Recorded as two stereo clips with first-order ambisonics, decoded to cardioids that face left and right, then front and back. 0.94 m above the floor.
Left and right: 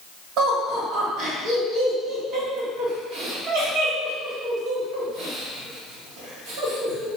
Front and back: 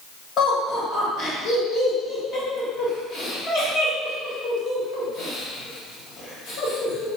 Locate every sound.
0.4 s laughter: 50° right, 1.2 m